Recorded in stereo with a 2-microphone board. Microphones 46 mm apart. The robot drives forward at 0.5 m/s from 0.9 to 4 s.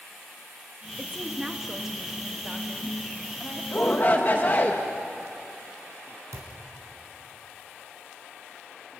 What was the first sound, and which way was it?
A woman speaking, 15° right (ahead or behind).